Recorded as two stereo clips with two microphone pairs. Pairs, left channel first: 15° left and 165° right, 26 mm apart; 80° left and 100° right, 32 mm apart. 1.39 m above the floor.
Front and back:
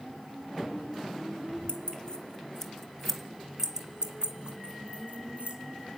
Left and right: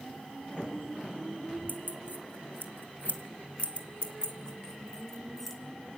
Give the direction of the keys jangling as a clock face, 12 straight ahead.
10 o'clock.